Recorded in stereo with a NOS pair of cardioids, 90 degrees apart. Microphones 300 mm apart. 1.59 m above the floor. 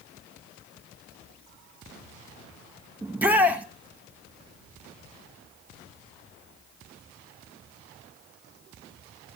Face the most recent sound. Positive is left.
turn(degrees=-5)